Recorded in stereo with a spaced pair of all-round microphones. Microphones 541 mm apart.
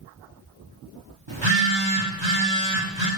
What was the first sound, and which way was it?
A phone buzzing, 55° right (ahead or behind).